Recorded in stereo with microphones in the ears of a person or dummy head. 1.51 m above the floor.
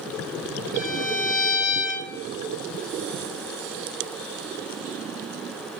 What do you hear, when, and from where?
0.7 s a violin: 60° left (ahead or behind), 1.7 m